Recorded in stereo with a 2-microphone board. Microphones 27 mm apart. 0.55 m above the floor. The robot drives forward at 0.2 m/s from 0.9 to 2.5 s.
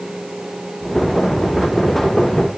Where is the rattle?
No rattle in this recording.